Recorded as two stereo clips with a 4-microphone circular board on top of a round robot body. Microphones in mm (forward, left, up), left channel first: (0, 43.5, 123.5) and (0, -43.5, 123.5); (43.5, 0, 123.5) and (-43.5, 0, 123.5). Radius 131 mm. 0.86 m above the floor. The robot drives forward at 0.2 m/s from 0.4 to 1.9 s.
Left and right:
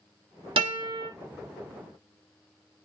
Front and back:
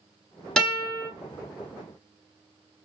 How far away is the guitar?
About 2 m.